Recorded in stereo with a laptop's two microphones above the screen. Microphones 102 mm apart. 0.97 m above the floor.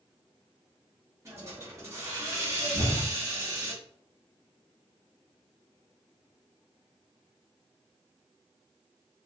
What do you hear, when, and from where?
1.2 s a hiss: 30° right (ahead or behind), 0.7 m
2.7 s an explosion: 60° right (ahead or behind), 0.9 m